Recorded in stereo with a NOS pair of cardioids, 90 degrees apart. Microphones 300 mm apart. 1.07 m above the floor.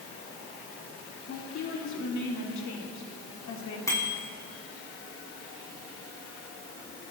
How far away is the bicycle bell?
About 7.5 m.